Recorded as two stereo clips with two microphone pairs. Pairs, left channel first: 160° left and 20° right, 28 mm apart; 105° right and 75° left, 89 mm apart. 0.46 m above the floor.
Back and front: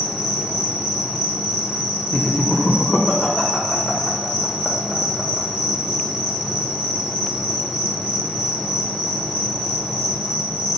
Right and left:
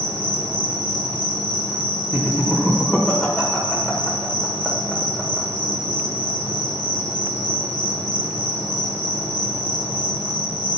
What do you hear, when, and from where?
0.0 s an insect: 130° right, 1.3 m
2.1 s laughter: 170° left, 1.3 m